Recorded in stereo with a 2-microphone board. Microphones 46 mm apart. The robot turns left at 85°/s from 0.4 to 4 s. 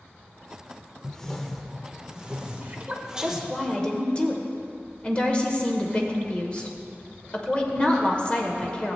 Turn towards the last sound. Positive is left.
turn(degrees=140)